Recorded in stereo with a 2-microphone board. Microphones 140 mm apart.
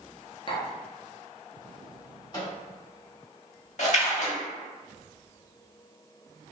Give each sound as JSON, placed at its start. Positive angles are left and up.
{"t": 0.5, "sound": "tapping", "side_deg": 40, "distance_m": 0.7}
{"t": 2.3, "sound": "a microwave", "side_deg": 30, "distance_m": 1.1}
{"t": 3.8, "sound": "a splash", "side_deg": 55, "distance_m": 0.6}